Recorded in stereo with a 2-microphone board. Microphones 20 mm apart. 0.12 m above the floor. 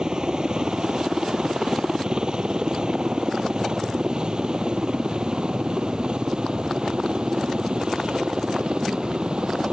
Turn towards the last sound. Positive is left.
turn(degrees=-50)  # may be behind; listen again after turning